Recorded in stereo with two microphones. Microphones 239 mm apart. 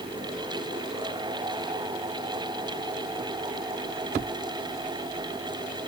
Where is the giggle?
I don't hear a giggle.